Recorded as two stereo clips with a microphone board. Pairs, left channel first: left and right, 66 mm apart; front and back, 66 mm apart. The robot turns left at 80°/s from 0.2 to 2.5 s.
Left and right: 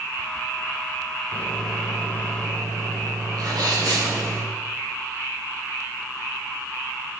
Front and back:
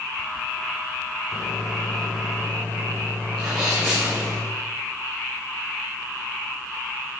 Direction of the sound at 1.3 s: 30° left.